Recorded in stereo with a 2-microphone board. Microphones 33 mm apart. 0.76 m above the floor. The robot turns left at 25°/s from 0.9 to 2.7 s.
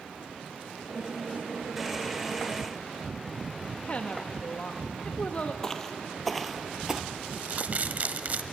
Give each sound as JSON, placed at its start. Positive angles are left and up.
{"t": 3.9, "sound": "a woman speaking", "side_deg": 40, "distance_m": 0.8}
{"t": 5.6, "sound": "footsteps", "side_deg": 15, "distance_m": 1.0}
{"t": 7.3, "sound": "crumpling", "side_deg": -50, "distance_m": 0.8}